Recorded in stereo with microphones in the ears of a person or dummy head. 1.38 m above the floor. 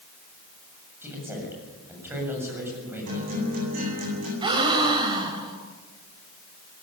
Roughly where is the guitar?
Right.